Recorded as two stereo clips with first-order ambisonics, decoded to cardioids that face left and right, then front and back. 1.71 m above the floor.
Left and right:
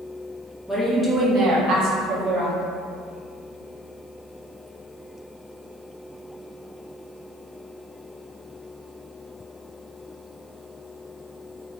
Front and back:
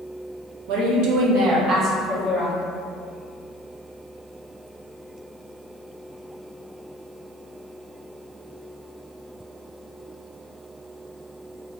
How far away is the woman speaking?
About 0.8 m.